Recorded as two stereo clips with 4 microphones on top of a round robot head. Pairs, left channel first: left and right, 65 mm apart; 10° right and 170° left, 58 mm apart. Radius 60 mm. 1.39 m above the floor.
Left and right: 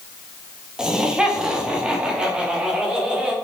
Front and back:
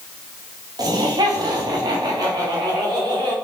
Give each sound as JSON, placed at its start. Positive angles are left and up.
{"t": 0.8, "sound": "laughter", "azimuth_deg": -170, "distance_m": 2.0}